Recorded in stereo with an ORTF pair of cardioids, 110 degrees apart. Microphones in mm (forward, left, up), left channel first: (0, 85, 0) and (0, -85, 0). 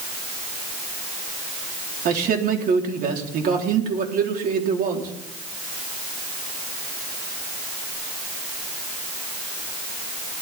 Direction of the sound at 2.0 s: 55° right.